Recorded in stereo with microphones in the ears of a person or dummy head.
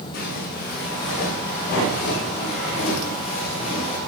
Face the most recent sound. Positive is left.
turn(degrees=30)  # may be behind; listen again after turning